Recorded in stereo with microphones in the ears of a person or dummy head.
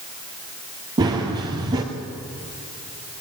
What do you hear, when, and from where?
1.0 s running footsteps: 25° right (ahead or behind), 2.5 m